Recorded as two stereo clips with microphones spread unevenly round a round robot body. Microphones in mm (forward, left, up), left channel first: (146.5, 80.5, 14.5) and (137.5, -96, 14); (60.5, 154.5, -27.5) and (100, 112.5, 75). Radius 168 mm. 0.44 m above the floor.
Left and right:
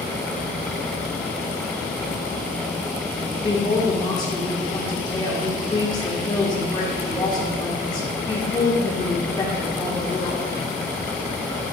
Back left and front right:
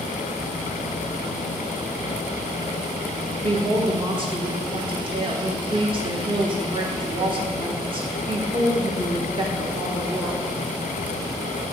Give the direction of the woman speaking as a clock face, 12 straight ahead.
9 o'clock.